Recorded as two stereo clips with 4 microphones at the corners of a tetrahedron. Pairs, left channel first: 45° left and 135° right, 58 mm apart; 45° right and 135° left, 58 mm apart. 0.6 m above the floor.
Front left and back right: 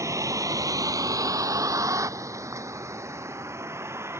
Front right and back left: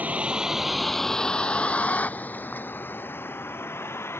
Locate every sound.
0.0 s a vehicle: 160° right; by 4.2 s 90° right